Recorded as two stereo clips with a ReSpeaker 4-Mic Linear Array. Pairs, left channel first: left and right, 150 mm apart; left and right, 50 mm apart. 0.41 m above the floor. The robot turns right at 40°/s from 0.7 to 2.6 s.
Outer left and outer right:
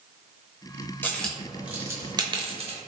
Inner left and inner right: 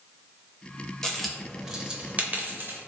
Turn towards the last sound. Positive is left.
turn(degrees=-40)  # may be behind; listen again after turning